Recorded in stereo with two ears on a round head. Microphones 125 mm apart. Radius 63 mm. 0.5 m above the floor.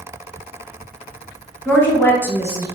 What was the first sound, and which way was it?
A woman speaking, 10° left (ahead or behind).